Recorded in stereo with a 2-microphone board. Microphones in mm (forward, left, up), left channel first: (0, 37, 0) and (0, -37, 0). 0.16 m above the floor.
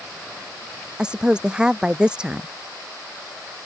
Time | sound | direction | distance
1.0 | a woman speaking | 10° right (ahead or behind) | ?